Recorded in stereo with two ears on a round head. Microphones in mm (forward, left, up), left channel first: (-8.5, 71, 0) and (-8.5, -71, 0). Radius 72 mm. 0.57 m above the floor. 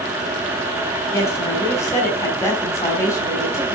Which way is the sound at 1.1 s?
20° left (ahead or behind).